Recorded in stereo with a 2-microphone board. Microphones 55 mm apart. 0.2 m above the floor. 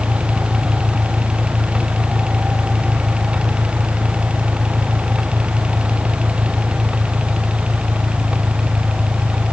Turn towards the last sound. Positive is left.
turn(degrees=-40)  # may be behind; listen again after turning